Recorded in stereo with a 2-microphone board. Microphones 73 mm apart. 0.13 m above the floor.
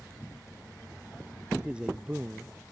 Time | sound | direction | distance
1.6 | a man speaking | 15° right (ahead or behind) | ?